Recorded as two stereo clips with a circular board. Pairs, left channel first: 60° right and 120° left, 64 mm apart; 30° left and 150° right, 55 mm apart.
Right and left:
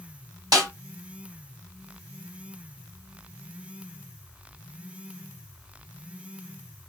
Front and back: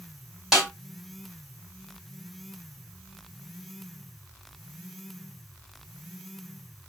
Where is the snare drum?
130° left, 1.8 m.